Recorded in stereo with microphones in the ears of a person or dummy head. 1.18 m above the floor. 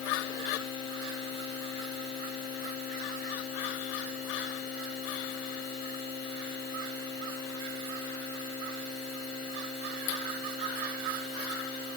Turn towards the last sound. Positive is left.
No sound to turn to.